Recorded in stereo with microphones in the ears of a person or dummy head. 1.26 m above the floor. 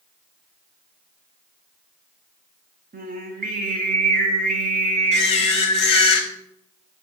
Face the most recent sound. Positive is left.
turn(degrees=35)  # may be behind; listen again after turning